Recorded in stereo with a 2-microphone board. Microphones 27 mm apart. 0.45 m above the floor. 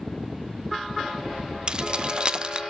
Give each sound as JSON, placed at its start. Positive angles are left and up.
{"t": 1.7, "sound": "keys jangling", "side_deg": -35, "distance_m": 0.5}